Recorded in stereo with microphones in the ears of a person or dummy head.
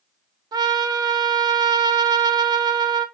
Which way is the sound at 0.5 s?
25° right (ahead or behind).